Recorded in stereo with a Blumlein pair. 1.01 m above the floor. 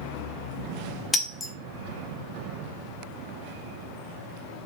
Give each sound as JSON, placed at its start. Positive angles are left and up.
{"t": 1.1, "sound": "breaking glass", "azimuth_deg": 15, "distance_m": 0.6}